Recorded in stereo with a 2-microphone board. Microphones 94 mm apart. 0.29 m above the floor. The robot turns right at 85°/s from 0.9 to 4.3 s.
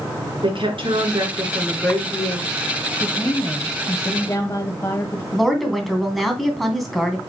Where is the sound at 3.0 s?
25° left, 1.2 m; by 5.2 s 135° left, 1.2 m.